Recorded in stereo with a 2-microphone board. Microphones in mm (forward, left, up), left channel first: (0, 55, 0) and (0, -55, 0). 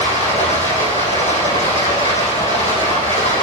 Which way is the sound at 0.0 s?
85° left.